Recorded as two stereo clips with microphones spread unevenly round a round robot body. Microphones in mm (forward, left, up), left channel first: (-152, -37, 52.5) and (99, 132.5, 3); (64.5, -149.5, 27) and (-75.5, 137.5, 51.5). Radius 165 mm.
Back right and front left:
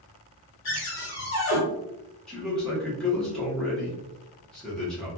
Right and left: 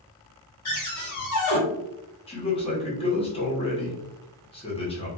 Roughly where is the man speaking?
Ahead right.